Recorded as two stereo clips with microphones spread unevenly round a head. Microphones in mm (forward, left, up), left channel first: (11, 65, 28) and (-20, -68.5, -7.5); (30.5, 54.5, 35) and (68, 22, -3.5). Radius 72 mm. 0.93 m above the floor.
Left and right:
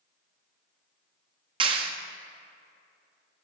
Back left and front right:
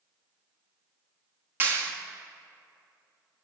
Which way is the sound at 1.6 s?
55° right.